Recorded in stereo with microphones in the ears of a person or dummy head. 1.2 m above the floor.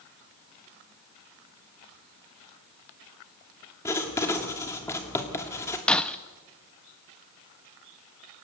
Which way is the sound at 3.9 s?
10° left (ahead or behind).